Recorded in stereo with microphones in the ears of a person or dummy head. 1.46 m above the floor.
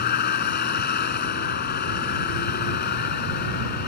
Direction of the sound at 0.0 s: 55° left (ahead or behind).